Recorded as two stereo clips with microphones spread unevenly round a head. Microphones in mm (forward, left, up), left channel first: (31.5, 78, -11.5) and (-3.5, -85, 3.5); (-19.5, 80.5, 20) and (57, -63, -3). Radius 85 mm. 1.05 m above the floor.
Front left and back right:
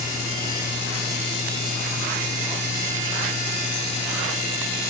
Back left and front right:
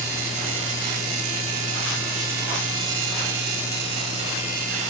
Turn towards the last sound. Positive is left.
No sound to turn to.